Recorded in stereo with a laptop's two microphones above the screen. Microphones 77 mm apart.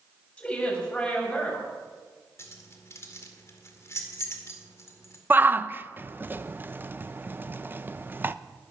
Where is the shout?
25° right (ahead or behind), 0.6 m.